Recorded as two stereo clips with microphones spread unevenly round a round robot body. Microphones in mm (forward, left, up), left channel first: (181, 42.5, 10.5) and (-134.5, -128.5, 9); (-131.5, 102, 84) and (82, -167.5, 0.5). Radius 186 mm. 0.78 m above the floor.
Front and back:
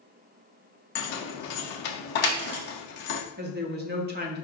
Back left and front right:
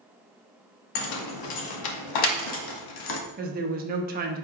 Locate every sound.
0.9 s keys jangling: 95° left, 0.6 m
3.4 s a woman speaking: 95° right, 0.6 m